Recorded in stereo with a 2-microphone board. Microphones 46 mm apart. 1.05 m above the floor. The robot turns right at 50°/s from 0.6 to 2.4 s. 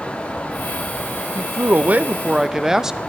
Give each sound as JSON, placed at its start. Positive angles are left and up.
{"t": 1.4, "sound": "a man speaking", "azimuth_deg": -65, "distance_m": 0.6}